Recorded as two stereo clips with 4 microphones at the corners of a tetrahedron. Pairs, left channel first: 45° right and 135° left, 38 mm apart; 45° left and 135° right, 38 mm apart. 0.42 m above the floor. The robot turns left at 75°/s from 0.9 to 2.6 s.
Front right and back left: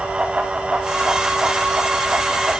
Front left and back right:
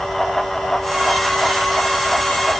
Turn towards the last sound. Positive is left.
No sound to turn to.